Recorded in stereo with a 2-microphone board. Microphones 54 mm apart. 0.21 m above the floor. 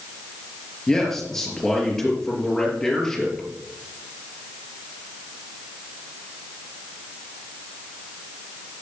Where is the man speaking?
10° left (ahead or behind), 5 m.